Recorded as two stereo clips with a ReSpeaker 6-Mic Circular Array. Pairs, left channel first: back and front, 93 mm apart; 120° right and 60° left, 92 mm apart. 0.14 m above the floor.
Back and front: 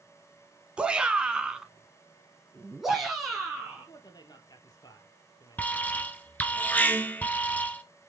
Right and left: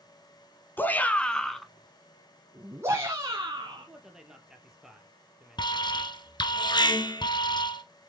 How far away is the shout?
About 1.6 m.